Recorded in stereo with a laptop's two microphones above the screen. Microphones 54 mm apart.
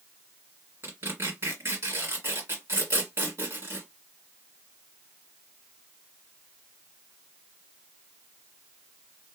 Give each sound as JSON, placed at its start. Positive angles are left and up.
{"t": 0.8, "sound": "tearing paper", "side_deg": -50, "distance_m": 2.0}